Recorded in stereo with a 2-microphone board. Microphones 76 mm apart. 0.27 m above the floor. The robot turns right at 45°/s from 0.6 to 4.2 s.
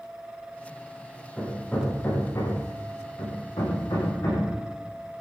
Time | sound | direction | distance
1.4 | hammering | centre (ahead or behind) | 7.5 m